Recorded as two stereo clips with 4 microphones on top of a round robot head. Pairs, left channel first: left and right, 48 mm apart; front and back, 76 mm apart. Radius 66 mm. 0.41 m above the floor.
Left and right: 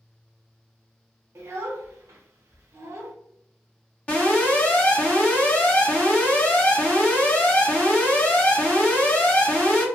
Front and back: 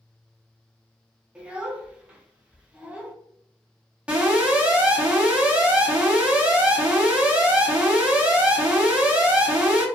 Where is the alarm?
125° left, 1.4 m.